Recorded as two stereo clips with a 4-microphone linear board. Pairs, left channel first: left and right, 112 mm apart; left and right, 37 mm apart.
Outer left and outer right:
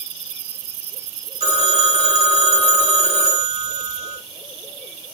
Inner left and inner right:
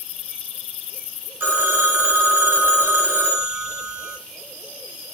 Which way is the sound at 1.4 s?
65° right (ahead or behind).